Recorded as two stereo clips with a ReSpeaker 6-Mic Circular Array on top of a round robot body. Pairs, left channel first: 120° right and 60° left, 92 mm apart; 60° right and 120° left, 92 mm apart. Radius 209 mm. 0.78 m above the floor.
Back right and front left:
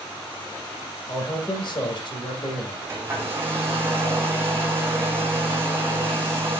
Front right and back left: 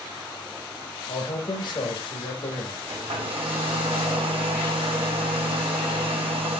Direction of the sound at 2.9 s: 125° left.